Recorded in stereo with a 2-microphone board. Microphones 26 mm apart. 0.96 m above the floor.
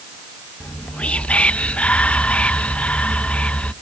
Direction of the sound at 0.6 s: 55° left (ahead or behind).